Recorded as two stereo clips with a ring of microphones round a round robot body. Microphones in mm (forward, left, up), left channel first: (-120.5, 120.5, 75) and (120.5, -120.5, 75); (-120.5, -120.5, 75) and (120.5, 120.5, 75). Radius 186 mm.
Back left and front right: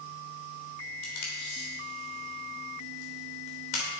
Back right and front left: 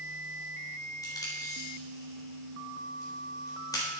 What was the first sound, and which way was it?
Tape being pulled, 145° left.